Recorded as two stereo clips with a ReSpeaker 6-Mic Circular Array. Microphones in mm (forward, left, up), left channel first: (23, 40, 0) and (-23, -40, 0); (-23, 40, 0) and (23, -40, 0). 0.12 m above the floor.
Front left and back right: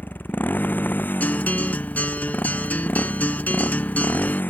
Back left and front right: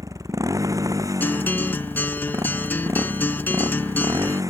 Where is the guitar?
100° left.